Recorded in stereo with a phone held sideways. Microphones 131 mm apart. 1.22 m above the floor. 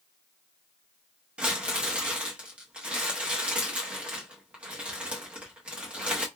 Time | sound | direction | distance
1.4 | crumpling | 10° right (ahead or behind) | 1.0 m